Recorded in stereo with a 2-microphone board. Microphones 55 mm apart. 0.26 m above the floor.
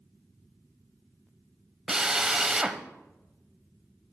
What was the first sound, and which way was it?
A drill, 10° right (ahead or behind).